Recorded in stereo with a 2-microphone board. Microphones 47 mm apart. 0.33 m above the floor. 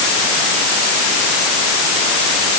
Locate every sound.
Only background noise.